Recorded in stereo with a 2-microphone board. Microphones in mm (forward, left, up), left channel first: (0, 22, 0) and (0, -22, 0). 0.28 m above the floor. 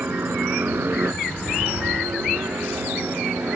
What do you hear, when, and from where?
0.0 s a helicopter: 50° right (ahead or behind); by 3.6 s 65° right (ahead or behind)